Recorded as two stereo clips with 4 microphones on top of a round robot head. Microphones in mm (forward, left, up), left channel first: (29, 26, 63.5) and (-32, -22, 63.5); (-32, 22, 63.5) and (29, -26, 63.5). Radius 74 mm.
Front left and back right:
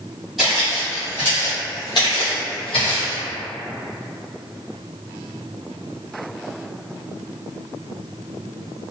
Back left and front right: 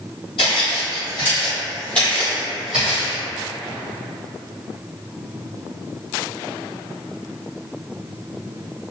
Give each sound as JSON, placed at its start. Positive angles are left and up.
{"t": 0.4, "sound": "footsteps", "azimuth_deg": 130, "distance_m": 1.4}